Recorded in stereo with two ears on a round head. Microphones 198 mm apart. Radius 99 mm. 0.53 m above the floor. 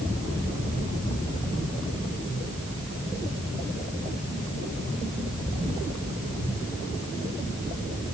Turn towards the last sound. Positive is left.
No sound to turn to.